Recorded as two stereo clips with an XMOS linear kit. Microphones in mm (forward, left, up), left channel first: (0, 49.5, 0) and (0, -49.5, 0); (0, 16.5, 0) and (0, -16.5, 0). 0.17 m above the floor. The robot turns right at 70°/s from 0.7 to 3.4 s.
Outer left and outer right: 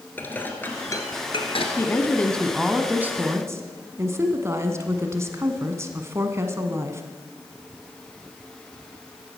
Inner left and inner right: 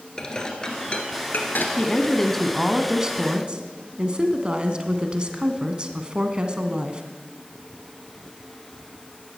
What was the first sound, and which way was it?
Dishes clattering, 20° left (ahead or behind).